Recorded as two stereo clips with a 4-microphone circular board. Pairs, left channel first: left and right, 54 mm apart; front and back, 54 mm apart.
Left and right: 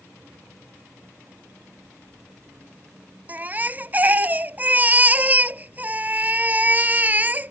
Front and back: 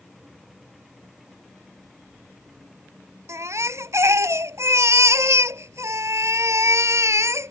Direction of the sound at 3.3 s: 150° right.